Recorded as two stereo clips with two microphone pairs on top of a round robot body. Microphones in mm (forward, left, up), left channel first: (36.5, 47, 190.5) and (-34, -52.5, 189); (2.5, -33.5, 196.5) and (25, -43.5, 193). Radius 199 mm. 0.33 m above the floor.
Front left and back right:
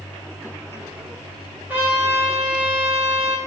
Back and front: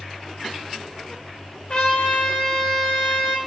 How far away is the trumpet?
About 1.5 m.